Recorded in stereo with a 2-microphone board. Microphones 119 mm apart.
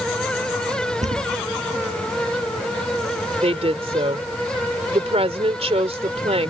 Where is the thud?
80° right.